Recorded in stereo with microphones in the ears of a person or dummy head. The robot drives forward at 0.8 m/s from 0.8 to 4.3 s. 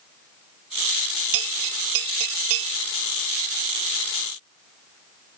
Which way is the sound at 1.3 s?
75° right (ahead or behind).